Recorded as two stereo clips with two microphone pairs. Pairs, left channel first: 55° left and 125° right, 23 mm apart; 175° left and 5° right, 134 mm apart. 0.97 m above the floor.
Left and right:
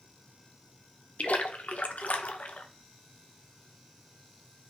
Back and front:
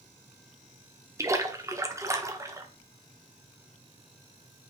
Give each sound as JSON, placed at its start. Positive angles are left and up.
{"t": 1.2, "sound": "a splash", "azimuth_deg": 60, "distance_m": 0.9}